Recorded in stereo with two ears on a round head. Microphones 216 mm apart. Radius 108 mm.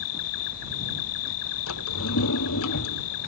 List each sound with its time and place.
0.0 s an insect: 75° left (ahead or behind)
1.7 s a drawer: 60° left (ahead or behind)